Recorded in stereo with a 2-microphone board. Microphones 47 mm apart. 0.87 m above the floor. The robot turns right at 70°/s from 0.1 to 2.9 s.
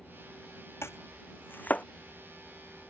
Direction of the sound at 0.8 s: 80° left.